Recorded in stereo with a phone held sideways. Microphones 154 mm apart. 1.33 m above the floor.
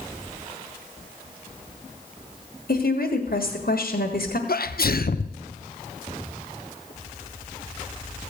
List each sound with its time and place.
2.7 s a woman speaking: 75° left (ahead or behind), 1.6 m
4.5 s a sneeze: 75° left (ahead or behind), 0.7 m